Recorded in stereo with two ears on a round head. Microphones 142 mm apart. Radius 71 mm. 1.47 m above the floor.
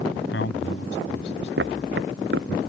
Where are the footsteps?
75° right (ahead or behind).